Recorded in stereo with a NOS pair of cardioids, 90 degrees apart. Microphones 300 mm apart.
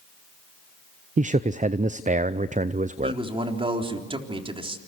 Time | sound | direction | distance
1.2 | a man speaking | 25° right | 0.6 m
3.0 | a man speaking | 20° right | 3.5 m